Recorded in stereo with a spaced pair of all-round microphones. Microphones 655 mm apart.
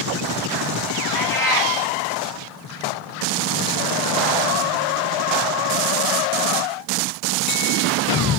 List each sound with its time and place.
1.1 s a cat meowing: 5° left (ahead or behind), 1.6 m